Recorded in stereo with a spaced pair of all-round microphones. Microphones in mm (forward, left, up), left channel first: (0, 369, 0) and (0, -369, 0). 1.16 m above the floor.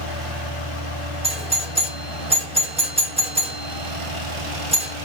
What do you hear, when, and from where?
1.2 s a doorbell: 10° right (ahead or behind), 1.2 m